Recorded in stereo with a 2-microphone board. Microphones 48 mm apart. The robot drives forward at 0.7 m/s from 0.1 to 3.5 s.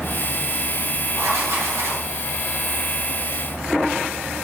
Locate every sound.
1.1 s writing: 85° right, 3.5 m; by 2.1 s 80° right, 3.5 m